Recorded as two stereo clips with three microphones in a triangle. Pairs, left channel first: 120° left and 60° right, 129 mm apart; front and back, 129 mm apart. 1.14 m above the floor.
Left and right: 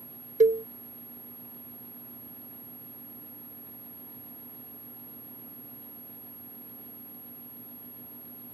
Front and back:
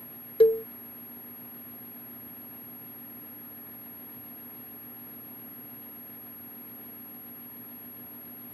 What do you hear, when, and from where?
0.4 s a cowbell: 45° right